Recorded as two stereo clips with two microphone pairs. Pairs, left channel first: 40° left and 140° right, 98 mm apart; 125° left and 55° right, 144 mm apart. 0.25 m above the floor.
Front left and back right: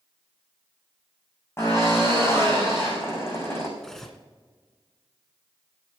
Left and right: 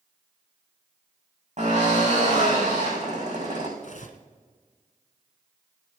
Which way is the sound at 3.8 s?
120° left.